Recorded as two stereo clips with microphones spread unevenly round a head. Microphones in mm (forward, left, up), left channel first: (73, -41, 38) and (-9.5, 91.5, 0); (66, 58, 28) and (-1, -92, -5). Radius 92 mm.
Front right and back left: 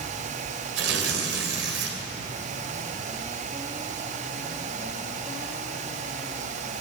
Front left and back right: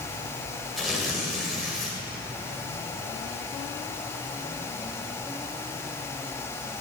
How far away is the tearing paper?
About 2.5 m.